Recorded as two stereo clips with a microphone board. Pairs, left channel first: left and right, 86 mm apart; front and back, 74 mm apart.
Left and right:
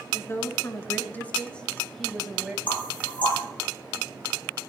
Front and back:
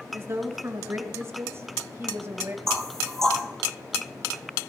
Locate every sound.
0.1 s a woman speaking: 130° left, 2 m; by 2.6 s 165° right, 1.6 m
2.7 s knocking: 85° left, 4 m